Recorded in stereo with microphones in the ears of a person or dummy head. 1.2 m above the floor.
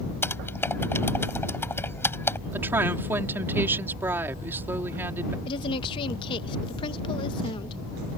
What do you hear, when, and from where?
0.2 s typing on a keyboard: 10° left (ahead or behind)
2.5 s a woman speaking: 15° right (ahead or behind)
5.5 s a woman speaking: 30° left (ahead or behind)